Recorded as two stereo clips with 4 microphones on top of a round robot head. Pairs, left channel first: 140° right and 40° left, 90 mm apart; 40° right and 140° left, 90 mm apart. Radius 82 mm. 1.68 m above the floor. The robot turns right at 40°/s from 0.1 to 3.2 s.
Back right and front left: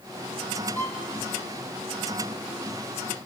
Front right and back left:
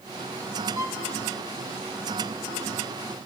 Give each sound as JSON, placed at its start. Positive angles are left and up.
{"t": 0.8, "sound": "a violin", "azimuth_deg": 170, "distance_m": 1.3}